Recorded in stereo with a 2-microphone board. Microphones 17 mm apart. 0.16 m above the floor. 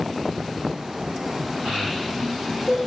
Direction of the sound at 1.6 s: 45° right (ahead or behind).